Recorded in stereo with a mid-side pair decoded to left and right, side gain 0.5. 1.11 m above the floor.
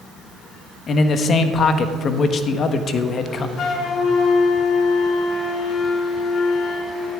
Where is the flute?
55° left, 2 m.